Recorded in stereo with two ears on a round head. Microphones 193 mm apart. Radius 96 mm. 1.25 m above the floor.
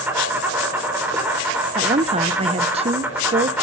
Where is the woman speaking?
30° right (ahead or behind), 0.8 m.